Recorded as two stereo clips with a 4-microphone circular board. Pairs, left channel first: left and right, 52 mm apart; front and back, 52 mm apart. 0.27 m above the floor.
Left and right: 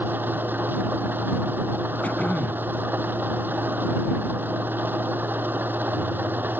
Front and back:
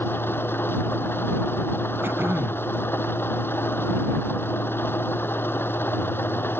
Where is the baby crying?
No baby crying in this recording.